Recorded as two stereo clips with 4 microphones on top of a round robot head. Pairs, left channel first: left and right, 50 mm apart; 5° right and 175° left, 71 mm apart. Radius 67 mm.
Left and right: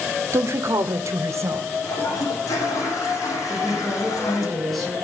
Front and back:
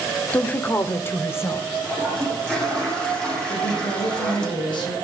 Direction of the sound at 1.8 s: 75° left.